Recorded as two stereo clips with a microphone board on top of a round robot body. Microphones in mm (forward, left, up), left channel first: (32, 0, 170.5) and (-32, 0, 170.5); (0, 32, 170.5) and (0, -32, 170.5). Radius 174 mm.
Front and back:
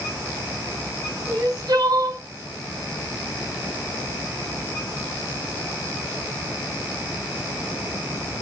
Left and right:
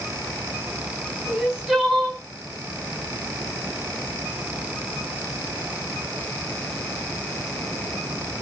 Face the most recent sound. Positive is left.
turn(degrees=-175)